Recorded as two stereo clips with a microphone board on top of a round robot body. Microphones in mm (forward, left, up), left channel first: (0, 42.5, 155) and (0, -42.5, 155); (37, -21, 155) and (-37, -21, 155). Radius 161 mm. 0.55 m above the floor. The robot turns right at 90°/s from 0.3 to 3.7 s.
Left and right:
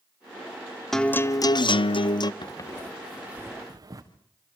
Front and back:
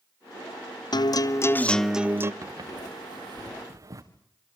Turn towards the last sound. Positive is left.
turn(degrees=-140)